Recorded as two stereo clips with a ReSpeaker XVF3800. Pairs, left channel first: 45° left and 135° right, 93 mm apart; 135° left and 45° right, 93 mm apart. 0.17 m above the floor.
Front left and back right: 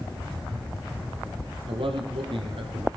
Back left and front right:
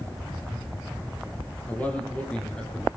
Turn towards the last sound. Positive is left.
turn(degrees=-145)